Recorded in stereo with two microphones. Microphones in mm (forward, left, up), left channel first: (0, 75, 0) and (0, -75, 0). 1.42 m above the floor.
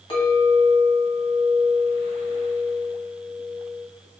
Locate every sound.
0.1 s a clink: 35° left (ahead or behind), 1.2 m